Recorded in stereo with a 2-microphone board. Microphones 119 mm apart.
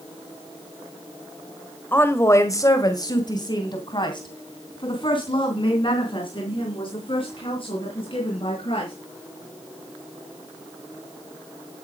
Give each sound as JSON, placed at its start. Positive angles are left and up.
{"t": 1.9, "sound": "a woman speaking", "side_deg": 15, "distance_m": 1.4}